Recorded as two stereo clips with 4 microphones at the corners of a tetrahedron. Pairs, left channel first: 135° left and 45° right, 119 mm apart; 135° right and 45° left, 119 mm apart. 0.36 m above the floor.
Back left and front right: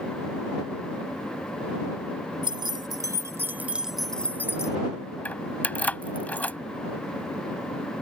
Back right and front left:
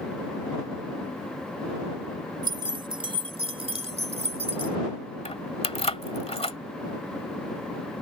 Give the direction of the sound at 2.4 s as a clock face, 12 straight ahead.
12 o'clock.